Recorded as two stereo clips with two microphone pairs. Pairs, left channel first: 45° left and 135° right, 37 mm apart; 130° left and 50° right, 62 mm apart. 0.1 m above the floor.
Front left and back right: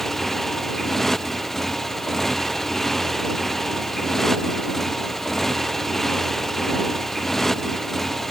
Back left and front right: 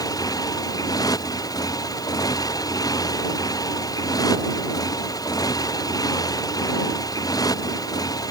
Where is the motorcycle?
125° left.